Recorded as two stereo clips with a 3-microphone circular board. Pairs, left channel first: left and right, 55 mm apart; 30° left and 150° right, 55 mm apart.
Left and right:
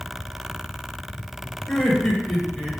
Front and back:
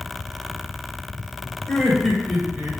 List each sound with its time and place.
1.7 s laughter: 60° left, 1.2 m; by 2.8 s 160° left, 1.3 m